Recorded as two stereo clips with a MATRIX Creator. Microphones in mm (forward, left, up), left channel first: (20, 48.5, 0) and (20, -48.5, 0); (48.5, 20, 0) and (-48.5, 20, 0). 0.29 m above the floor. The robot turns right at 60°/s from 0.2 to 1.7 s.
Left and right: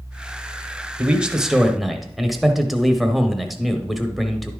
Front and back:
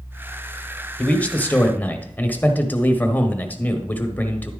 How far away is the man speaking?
About 0.9 m.